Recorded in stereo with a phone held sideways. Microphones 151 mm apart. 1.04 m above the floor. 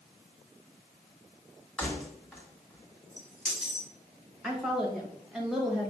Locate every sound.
1.8 s keys jangling: 5° left (ahead or behind), 1.6 m
4.4 s a woman speaking: 5° right (ahead or behind), 1.2 m